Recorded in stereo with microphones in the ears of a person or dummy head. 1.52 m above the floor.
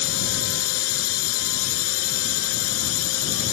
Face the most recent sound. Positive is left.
turn(degrees=80)